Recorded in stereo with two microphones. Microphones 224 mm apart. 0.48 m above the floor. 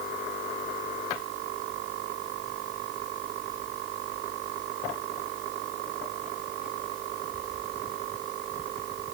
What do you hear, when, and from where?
Only background noise.